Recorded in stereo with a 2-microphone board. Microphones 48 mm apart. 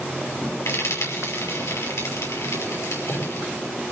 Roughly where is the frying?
Left.